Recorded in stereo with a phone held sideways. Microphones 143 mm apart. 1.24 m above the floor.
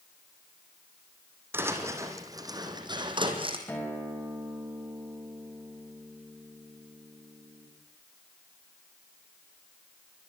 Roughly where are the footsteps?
Centre.